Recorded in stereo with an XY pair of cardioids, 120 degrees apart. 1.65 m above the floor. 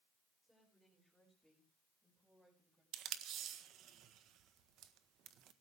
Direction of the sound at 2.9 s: 65° right.